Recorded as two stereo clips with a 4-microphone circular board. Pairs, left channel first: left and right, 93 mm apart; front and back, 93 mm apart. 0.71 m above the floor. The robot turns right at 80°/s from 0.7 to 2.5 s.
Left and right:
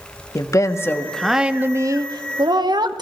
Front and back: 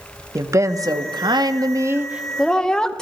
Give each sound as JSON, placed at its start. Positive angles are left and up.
{"t": 0.3, "sound": "a woman speaking", "azimuth_deg": 135, "distance_m": 0.7}